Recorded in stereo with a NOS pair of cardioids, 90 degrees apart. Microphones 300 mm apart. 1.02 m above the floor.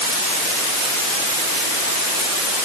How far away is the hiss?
I don't hear a hiss.